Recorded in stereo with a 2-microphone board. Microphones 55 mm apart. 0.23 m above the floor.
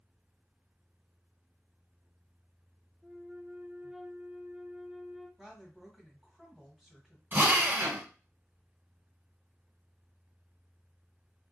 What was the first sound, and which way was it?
A flute, 10° right (ahead or behind).